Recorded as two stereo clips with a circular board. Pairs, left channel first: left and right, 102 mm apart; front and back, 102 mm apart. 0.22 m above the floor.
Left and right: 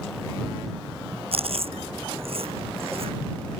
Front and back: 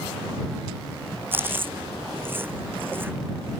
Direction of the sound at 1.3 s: 110° right.